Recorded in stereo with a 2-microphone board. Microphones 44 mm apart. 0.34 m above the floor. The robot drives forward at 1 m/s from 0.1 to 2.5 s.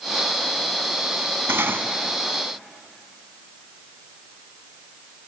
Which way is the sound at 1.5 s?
70° right (ahead or behind).